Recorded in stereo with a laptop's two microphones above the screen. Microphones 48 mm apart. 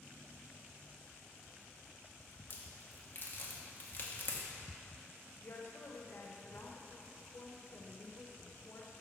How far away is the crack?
About 0.9 m.